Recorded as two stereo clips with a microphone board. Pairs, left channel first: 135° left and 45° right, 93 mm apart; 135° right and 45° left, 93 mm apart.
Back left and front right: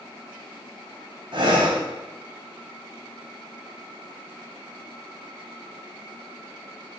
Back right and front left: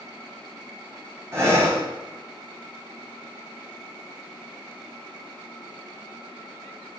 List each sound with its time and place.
1.3 s breathing: 15° right, 1.3 m